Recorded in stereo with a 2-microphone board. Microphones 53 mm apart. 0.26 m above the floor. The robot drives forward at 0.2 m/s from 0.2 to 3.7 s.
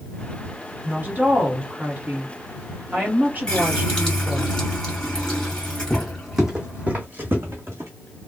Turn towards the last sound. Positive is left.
turn(degrees=-50)  # may be behind; listen again after turning